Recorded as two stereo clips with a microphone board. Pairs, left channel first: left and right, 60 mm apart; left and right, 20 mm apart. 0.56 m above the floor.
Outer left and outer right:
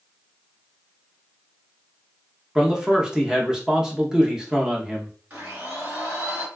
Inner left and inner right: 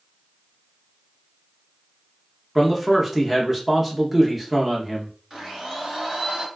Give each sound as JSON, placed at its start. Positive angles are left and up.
{"t": 2.5, "sound": "a man speaking", "side_deg": -10, "distance_m": 0.7}
{"t": 5.3, "sound": "a blender", "side_deg": -30, "distance_m": 1.9}